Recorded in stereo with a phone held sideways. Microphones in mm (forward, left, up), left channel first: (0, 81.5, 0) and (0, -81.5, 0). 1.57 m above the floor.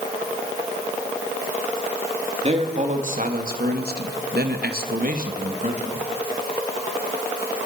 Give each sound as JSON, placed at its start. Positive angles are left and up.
{"t": 2.4, "sound": "a man speaking", "side_deg": -40, "distance_m": 3.5}